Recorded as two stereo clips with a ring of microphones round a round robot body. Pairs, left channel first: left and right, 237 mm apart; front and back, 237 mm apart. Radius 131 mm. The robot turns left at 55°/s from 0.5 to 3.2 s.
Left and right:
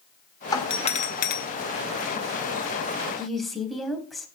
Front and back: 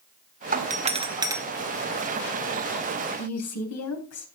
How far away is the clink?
No clink in this recording.